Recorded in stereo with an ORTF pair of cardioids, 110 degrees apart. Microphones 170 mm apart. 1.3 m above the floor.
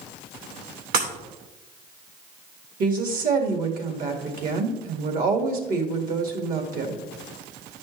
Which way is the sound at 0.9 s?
65° right.